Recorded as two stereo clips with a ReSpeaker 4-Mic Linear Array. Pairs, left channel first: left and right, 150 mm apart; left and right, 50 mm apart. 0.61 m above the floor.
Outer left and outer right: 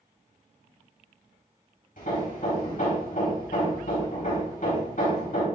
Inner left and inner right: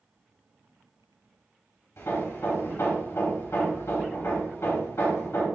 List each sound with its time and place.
2.0 s hammering: 60° left (ahead or behind), 3 m